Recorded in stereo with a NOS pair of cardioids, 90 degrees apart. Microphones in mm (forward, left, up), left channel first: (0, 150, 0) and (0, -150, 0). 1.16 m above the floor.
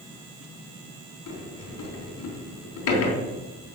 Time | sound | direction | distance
1.3 | a sliding door | 65° left | 3.5 m